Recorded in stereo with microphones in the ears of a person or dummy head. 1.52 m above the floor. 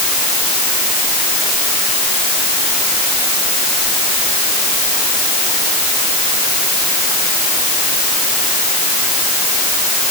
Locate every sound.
Only background noise.